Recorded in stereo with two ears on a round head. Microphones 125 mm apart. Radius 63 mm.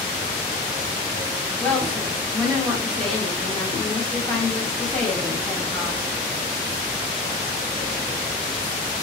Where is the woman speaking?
5° left (ahead or behind), 1.2 m.